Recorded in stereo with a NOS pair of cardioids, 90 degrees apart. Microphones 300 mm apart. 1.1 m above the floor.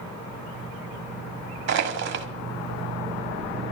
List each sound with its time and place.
1.7 s crushing: 60° right, 1.9 m